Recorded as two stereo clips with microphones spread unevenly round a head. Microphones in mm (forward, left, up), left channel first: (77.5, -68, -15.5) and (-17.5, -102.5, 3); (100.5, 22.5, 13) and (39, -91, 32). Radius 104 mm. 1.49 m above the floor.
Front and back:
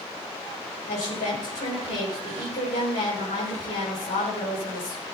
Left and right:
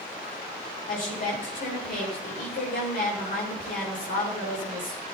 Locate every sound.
0.9 s a woman speaking: 50° left, 6 m